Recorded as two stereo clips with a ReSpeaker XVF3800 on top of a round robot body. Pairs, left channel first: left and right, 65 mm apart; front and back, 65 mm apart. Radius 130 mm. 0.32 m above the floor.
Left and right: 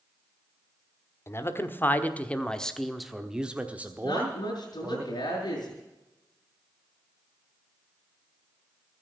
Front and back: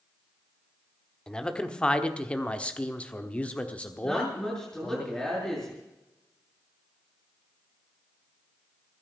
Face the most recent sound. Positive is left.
turn(degrees=80)